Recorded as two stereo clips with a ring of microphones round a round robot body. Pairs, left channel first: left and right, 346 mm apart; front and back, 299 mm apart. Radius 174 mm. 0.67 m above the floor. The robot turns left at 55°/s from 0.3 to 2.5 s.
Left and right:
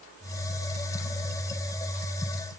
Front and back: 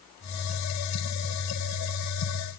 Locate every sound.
Only background noise.